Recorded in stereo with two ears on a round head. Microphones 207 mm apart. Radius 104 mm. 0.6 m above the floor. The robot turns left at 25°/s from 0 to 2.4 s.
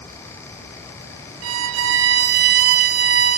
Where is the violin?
65° right (ahead or behind), 0.7 m; by 3.4 s 45° right (ahead or behind), 0.7 m.